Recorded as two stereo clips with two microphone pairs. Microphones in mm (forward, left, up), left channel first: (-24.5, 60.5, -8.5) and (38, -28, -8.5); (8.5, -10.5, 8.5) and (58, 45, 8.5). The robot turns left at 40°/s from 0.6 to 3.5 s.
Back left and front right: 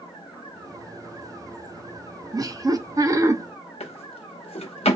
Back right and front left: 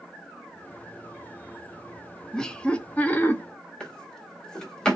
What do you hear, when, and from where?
2.3 s laughter: 50° right, 0.5 m; by 3.4 s 90° right, 0.5 m
3.8 s a drawer: 145° left, 0.8 m